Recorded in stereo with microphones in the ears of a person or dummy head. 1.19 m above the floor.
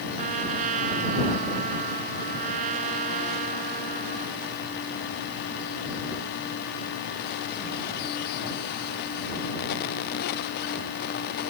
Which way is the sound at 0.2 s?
45° right (ahead or behind).